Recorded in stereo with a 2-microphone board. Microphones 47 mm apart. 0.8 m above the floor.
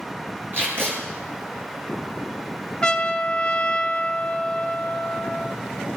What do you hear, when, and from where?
0.5 s tape being pulled: 55° right (ahead or behind), 3 m
2.8 s a trumpet: 20° left (ahead or behind), 0.6 m